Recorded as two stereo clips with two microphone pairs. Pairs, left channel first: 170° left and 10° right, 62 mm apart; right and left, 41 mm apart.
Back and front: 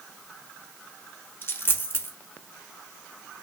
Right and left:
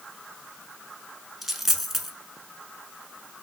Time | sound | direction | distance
1.4 | a dropped coin | 165° left | 0.8 m